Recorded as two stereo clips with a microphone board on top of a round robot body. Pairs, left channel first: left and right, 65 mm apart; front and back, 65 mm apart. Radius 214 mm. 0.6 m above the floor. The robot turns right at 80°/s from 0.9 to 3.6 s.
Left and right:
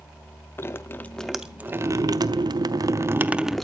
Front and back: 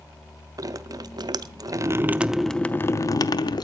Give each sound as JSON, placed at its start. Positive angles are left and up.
{"t": 0.6, "sound": "dripping", "azimuth_deg": 150, "distance_m": 0.7}